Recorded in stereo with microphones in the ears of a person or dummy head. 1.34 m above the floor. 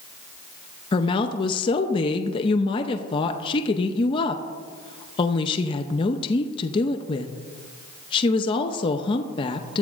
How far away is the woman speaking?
About 0.6 m.